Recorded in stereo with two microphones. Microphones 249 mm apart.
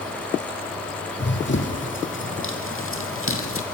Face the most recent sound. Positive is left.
turn(degrees=55)  # may be behind; listen again after turning